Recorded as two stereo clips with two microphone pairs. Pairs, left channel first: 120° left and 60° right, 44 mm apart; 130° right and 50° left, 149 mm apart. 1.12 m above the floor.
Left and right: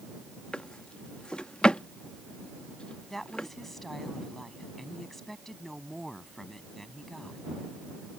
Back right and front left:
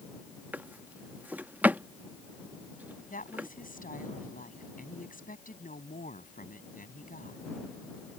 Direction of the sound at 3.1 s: 155° right.